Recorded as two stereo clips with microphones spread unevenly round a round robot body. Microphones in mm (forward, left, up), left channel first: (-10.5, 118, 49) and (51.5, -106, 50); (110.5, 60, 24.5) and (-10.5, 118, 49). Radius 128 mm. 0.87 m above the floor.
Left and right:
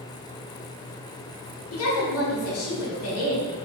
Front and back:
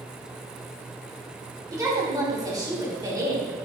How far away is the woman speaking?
About 3 m.